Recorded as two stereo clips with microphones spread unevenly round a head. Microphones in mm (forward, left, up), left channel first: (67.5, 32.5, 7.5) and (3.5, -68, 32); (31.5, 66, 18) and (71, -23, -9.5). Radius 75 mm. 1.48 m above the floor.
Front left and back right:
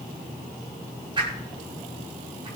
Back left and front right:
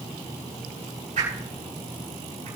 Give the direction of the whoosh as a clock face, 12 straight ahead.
2 o'clock.